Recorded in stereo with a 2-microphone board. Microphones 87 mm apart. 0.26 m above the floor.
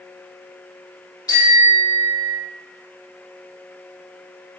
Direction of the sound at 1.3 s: 40° left (ahead or behind).